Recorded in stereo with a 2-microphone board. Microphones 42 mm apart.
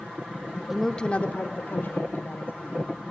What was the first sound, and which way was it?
A woman speaking, 5° right (ahead or behind).